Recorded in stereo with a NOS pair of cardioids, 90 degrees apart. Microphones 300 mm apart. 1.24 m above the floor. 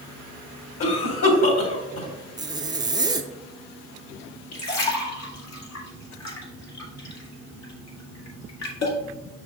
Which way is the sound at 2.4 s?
15° right.